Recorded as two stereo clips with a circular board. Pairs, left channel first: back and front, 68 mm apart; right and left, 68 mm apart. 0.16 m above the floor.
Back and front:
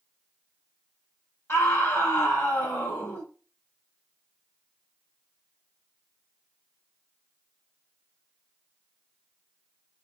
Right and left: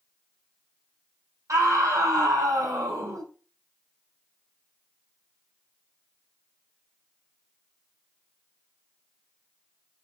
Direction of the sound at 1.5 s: 130° left.